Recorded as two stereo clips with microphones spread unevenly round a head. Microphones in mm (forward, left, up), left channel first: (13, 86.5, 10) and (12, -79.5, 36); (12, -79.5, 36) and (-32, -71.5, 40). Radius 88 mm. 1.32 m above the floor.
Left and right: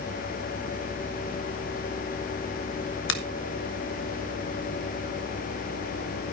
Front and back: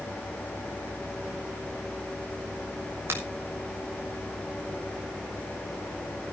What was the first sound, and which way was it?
A finger snap, 110° left.